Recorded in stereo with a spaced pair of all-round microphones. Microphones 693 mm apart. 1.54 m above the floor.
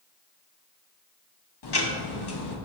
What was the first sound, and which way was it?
Ticking, 35° left (ahead or behind).